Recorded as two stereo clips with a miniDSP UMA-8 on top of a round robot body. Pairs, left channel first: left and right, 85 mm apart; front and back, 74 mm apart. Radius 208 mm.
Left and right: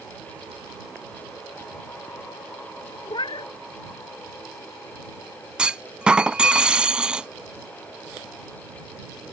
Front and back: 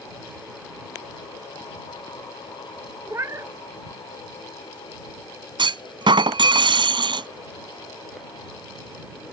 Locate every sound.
3.1 s a cat meowing: 125° left
5.6 s a clunk: 170° right